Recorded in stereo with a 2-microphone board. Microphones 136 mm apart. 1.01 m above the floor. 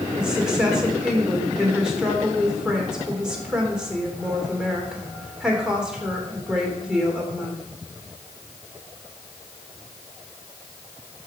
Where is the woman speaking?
5° right (ahead or behind), 2.5 m.